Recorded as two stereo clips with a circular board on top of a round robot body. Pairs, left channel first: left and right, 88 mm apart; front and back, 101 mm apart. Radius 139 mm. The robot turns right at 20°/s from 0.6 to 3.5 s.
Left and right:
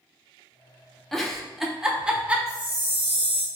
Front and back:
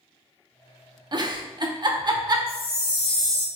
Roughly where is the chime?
Ahead right.